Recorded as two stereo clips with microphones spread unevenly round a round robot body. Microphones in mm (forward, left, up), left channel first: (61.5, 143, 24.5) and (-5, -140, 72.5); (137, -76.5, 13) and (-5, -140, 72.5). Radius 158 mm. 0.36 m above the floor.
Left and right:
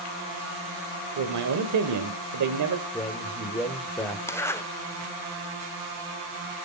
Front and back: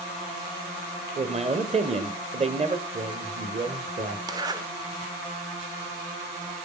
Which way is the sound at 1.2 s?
95° right.